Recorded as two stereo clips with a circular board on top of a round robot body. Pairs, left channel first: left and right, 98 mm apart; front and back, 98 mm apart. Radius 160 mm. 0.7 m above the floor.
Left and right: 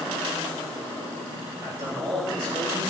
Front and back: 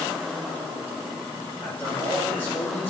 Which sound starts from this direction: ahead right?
A man speaking, at 1.6 s.